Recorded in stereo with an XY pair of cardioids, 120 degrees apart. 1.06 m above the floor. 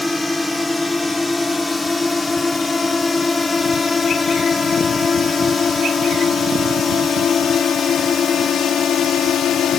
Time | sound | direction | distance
0.0 | a drone | 10° left | ?